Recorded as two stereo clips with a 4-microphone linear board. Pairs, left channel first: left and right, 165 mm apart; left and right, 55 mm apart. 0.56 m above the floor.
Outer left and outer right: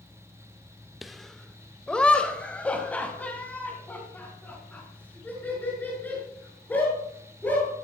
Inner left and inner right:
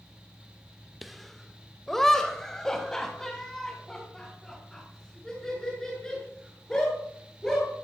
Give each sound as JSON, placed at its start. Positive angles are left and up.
{"t": 1.0, "sound": "laughter", "side_deg": 0, "distance_m": 1.0}